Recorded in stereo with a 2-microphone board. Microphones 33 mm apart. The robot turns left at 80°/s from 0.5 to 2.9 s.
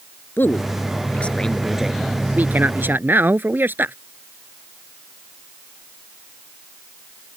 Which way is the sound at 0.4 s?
95° left.